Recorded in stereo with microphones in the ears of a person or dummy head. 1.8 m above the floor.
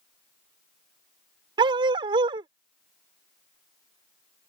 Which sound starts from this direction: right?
A dog barking, at 1.6 s.